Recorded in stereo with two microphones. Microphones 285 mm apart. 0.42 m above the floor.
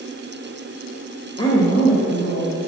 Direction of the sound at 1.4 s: 15° left (ahead or behind).